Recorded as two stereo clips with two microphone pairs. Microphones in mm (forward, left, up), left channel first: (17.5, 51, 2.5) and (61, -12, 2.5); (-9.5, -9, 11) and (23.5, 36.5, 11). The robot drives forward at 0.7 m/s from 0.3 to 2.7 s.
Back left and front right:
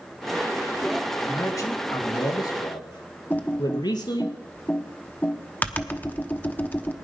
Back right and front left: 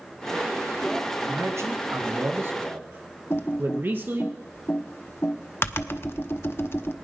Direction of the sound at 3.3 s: 170° right.